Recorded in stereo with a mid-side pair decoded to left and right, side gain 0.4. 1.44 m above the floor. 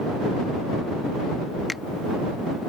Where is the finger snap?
20° left.